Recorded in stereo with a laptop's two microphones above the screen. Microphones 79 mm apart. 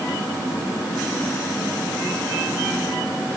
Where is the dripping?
No dripping in this recording.